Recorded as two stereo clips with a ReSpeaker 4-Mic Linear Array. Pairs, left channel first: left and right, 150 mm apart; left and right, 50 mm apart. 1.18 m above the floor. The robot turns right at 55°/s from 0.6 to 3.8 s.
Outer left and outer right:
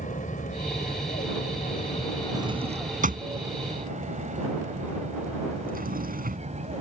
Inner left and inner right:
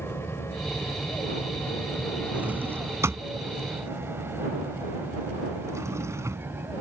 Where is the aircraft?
60° left (ahead or behind); by 6.8 s 50° right (ahead or behind).